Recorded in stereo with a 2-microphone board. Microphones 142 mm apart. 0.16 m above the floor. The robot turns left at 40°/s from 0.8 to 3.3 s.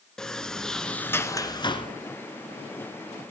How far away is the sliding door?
About 1.0 m.